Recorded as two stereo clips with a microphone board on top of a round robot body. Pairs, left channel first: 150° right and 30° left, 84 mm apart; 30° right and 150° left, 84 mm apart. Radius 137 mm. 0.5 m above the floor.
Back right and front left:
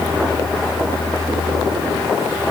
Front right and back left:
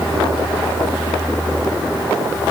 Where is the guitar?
No guitar in this recording.